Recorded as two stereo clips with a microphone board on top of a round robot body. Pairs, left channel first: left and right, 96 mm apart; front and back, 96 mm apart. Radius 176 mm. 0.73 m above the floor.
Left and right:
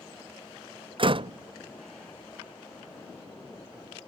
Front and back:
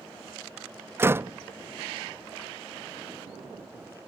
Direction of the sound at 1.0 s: 115° right.